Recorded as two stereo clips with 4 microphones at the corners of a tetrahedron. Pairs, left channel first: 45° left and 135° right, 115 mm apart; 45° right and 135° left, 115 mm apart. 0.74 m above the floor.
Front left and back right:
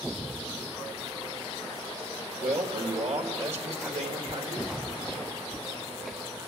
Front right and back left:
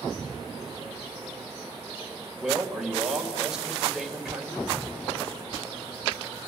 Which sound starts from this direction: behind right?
A man speaking, at 2.4 s.